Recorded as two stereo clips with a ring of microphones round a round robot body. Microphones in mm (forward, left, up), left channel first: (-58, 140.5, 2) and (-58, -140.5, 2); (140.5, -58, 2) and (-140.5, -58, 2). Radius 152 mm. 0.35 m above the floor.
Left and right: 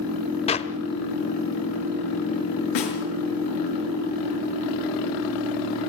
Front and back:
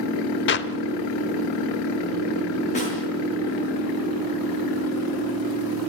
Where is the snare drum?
70° left, 5.5 m.